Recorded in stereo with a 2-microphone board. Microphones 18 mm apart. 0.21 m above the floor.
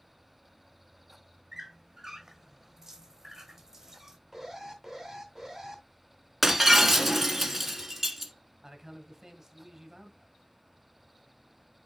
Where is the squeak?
20° right (ahead or behind), 1.3 m.